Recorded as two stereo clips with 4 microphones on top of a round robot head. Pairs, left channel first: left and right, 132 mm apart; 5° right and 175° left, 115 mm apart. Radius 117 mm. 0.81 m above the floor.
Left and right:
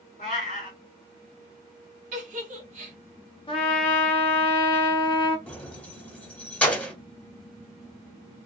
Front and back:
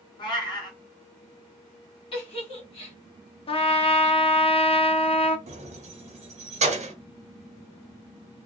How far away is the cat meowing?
About 1.1 m.